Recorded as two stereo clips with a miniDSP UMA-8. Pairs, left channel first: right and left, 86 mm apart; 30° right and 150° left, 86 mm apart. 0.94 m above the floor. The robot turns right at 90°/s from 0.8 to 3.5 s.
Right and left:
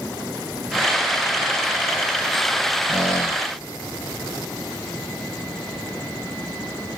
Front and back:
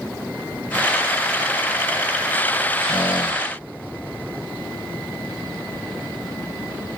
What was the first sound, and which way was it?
A squeak, 10° left.